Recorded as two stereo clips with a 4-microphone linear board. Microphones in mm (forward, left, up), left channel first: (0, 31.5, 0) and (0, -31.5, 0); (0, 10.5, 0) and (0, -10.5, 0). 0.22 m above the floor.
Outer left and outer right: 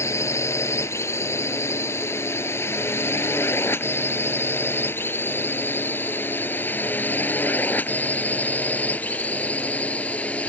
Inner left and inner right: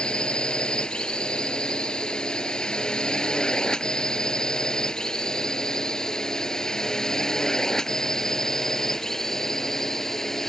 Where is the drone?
45° left (ahead or behind); by 10.5 s 20° left (ahead or behind).